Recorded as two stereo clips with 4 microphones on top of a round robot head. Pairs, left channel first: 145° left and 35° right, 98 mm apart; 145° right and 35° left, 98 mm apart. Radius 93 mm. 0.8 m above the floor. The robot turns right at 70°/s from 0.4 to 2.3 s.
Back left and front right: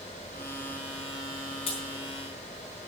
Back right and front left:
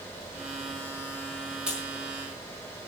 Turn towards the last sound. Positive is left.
turn(degrees=160)